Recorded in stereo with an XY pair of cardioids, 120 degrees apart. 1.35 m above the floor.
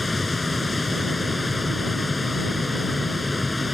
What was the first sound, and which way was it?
A machine running, 15° left.